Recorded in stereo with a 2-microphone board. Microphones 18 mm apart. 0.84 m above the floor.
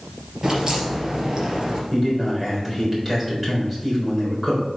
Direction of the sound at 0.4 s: 35° right (ahead or behind).